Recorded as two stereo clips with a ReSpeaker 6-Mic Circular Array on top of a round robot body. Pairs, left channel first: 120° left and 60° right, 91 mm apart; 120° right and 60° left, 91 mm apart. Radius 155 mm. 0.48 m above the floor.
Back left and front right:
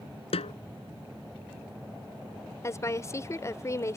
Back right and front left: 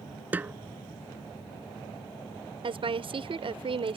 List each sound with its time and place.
0.3 s a snare drum: 130° left
2.6 s a woman speaking: 65° left